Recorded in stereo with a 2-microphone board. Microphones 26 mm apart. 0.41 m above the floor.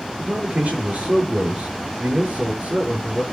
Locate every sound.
0.2 s a man speaking: 65° right (ahead or behind), 6.5 m